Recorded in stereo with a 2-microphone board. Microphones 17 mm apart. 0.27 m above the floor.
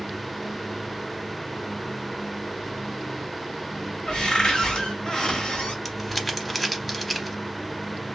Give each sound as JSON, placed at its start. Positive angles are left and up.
{"t": 4.1, "sound": "a cupboard door", "side_deg": 40, "distance_m": 1.3}
{"t": 5.8, "sound": "crumpling", "side_deg": 0, "distance_m": 0.6}